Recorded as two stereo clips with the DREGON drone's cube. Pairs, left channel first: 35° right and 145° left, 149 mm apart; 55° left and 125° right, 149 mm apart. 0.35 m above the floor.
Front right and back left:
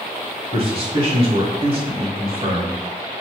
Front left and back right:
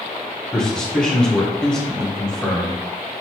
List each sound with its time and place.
0.5 s a man speaking: 135° left, 1.2 m